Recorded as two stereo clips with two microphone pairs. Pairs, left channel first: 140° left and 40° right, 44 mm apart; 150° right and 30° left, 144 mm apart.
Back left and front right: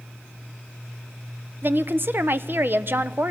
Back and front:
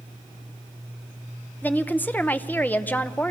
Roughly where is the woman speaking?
Right.